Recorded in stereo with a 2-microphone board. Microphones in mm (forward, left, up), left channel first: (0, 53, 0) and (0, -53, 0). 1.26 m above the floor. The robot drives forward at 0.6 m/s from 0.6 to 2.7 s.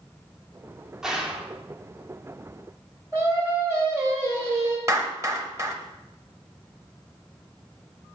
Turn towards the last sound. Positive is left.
turn(degrees=-25)  # may be behind; listen again after turning